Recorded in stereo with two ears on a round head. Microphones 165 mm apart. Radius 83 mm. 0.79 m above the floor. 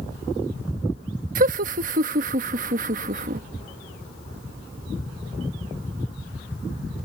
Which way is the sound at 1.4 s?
45° right (ahead or behind).